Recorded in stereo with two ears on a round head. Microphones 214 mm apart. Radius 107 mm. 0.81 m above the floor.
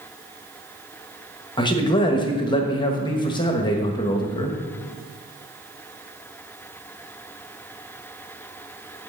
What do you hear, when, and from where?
1.6 s a man speaking: 20° left (ahead or behind), 1.1 m